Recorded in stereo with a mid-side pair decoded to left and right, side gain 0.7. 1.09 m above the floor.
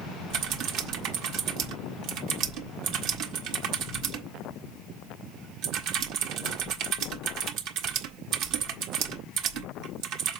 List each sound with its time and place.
0.3 s typing on a keyboard: 65° right, 1.4 m